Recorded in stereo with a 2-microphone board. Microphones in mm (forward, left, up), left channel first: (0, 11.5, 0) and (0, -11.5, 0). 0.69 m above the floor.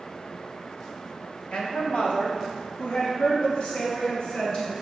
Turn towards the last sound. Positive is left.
turn(degrees=45)  # may be behind; listen again after turning